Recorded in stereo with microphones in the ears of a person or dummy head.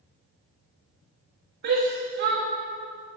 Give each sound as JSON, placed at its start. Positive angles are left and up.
{"t": 1.6, "sound": "a shout", "side_deg": -60, "distance_m": 2.0}